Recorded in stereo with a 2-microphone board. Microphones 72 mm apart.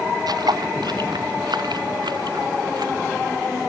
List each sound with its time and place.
0.3 s footsteps: 65° right (ahead or behind)